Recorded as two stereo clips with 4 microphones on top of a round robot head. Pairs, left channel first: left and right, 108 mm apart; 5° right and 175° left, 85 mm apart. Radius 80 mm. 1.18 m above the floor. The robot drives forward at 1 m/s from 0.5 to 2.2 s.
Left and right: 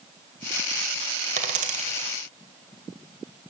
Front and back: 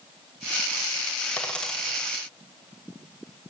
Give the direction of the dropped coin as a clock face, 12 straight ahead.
3 o'clock.